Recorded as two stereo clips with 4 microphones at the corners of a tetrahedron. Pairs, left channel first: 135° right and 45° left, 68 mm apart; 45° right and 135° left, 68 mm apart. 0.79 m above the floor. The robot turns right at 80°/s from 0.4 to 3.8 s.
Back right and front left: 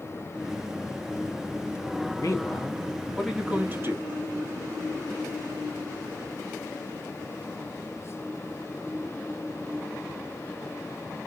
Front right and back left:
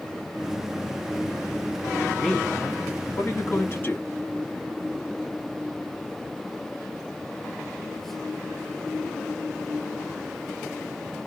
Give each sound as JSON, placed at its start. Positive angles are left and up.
{"t": 2.2, "sound": "a man speaking", "azimuth_deg": -135, "distance_m": 1.1}